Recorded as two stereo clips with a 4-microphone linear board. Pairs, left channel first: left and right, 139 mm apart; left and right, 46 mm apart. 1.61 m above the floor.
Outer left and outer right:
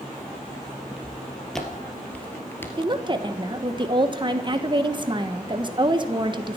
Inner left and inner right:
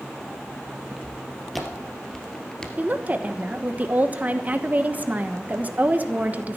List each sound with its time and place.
0.9 s footsteps: centre (ahead or behind), 2.5 m; by 2.7 s 15° left (ahead or behind), 1.6 m
2.8 s a woman speaking: 35° right (ahead or behind), 1.2 m